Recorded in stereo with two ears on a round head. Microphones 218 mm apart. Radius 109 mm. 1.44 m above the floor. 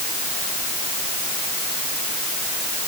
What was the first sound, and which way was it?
Only background noise.